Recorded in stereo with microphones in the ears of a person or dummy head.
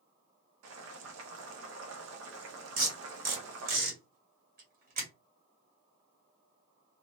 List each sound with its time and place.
0.6 s boiling: 90° right, 0.8 m
2.8 s tape being pulled: 45° right (ahead or behind), 1.4 m